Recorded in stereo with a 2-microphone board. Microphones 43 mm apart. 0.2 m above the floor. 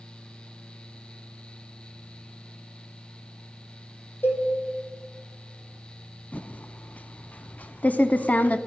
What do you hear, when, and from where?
4.2 s a cowbell: 55° left (ahead or behind), 2 m
6.3 s typing on a keyboard: 35° left (ahead or behind), 0.5 m